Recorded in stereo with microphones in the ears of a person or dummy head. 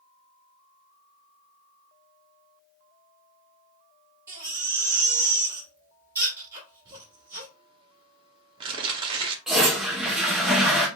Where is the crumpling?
30° right (ahead or behind), 0.9 m.